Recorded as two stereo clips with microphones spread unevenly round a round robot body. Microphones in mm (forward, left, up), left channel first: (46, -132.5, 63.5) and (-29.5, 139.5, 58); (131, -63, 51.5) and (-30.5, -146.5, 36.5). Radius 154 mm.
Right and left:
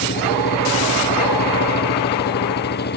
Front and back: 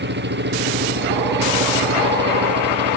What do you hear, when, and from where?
0.0 s an engine running: 130° right